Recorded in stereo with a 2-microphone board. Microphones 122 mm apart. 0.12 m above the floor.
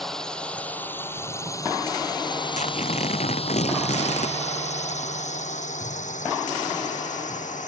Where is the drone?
Centre (ahead or behind); by 7.7 s 80° left.